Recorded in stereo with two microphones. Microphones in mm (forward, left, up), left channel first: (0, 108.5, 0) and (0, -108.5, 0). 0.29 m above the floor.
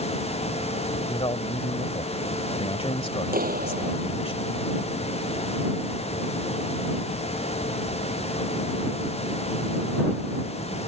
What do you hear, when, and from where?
1.1 s a man speaking: 25° left (ahead or behind)
3.3 s a clap: 40° right (ahead or behind)